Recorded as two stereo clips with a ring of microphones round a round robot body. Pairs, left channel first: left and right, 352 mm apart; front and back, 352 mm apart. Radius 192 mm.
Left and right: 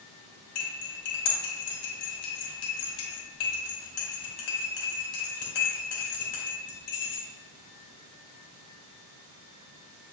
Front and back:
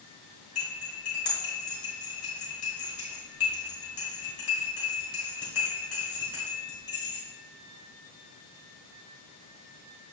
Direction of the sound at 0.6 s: 70° left.